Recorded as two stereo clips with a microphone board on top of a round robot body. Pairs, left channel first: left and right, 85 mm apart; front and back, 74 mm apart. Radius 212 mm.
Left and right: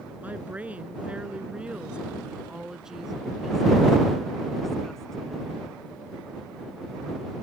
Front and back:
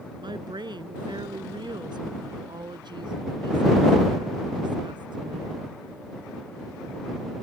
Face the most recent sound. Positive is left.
turn(degrees=170)